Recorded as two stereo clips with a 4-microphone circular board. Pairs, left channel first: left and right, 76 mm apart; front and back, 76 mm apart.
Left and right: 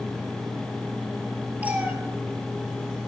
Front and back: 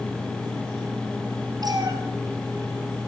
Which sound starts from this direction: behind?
A cat meowing, at 1.6 s.